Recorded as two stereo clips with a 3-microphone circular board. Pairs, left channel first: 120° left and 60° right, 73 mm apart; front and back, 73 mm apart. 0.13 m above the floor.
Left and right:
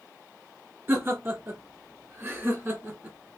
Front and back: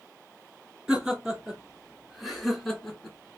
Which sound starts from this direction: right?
Laughter, at 0.9 s.